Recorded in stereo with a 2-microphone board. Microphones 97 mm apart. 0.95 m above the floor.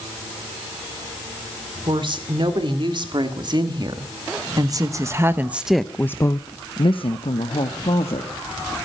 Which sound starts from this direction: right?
A woman speaking, at 1.9 s.